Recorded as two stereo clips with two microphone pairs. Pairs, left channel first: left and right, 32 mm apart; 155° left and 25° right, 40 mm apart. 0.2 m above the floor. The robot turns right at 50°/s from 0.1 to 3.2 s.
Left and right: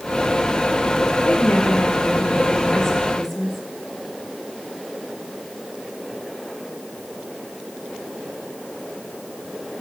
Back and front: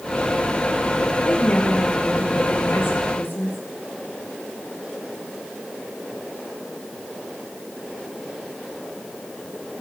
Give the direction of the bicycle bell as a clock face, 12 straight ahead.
No bicycle bell in this recording.